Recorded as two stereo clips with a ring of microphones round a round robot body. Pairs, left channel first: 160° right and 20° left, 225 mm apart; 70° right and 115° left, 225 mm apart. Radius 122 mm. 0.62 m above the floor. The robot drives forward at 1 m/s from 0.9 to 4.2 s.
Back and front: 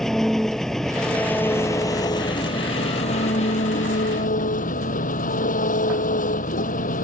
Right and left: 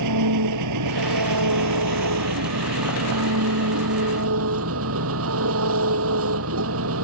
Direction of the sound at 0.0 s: 115° left.